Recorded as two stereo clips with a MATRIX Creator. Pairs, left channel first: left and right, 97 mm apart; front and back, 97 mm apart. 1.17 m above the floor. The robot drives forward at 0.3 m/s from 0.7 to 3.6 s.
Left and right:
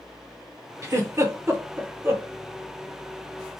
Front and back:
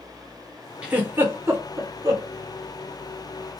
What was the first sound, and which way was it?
A giggle, 115° right.